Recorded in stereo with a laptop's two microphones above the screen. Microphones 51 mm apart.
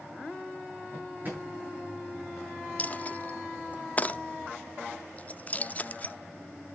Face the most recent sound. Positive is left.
turn(degrees=30)  # may be behind; listen again after turning